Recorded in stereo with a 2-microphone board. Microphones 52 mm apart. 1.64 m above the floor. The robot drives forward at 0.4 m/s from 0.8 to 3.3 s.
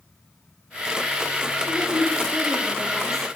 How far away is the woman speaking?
About 2.5 m.